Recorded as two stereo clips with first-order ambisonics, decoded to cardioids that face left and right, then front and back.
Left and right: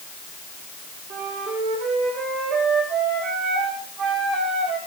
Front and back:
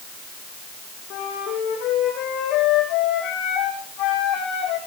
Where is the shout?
No shout in this recording.